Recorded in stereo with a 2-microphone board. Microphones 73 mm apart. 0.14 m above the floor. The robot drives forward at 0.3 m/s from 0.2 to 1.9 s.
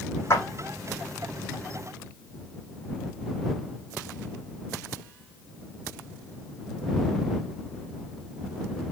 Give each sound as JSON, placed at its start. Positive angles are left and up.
{"t": 0.3, "sound": "a clap", "side_deg": 40, "distance_m": 5.5}